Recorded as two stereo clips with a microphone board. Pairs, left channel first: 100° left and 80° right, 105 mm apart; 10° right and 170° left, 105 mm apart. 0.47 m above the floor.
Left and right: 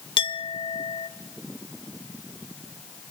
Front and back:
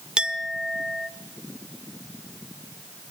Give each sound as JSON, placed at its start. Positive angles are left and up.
{"t": 0.2, "sound": "a clink", "azimuth_deg": 90, "distance_m": 0.9}